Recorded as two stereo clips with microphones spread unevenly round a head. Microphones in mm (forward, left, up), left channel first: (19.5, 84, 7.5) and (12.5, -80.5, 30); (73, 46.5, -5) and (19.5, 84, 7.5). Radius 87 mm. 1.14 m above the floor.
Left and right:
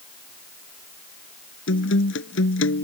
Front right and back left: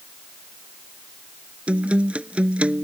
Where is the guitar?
80° left.